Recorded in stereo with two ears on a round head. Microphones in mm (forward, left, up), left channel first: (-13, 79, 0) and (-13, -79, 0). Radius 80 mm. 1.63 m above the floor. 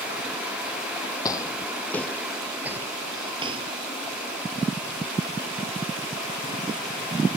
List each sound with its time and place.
1.2 s footsteps: 20° left (ahead or behind); by 3.7 s 30° right (ahead or behind)